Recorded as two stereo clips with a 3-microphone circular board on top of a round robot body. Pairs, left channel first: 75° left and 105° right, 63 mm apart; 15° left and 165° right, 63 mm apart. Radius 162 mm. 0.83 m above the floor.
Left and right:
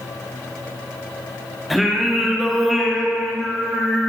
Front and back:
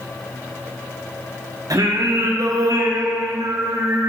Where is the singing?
165° left, 1.4 m.